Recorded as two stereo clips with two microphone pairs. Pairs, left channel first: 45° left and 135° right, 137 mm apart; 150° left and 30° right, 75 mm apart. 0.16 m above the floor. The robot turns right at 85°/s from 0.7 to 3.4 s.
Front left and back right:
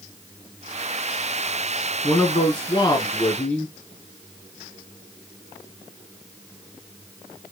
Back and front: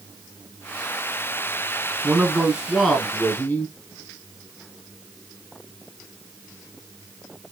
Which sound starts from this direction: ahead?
A man speaking, at 2.0 s.